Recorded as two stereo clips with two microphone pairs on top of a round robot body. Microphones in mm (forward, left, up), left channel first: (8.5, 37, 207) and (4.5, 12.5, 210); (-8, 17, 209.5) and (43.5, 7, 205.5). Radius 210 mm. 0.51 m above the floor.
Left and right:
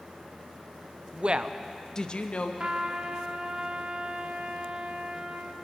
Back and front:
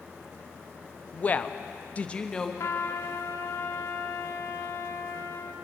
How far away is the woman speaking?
About 0.8 m.